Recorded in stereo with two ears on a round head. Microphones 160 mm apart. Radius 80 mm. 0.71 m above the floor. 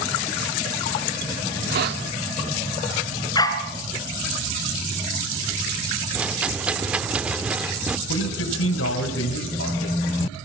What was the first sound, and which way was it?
A hiss, 60° right (ahead or behind).